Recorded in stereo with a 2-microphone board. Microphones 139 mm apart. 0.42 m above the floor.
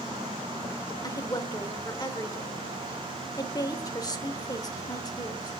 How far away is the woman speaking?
About 1.0 m.